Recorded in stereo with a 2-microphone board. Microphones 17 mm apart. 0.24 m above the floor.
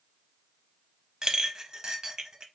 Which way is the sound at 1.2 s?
35° right (ahead or behind).